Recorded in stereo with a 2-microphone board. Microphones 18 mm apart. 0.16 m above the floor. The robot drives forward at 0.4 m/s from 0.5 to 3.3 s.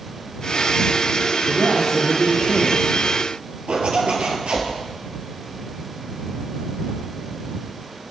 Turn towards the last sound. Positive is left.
turn(degrees=-65)  # may be behind; listen again after turning